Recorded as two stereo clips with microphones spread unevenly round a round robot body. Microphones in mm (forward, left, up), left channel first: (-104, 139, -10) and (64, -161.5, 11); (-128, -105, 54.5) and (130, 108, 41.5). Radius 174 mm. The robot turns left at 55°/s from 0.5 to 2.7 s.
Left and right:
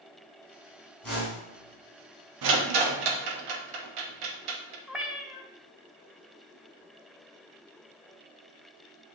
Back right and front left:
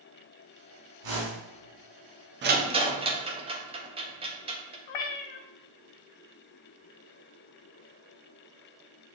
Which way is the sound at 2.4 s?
20° right.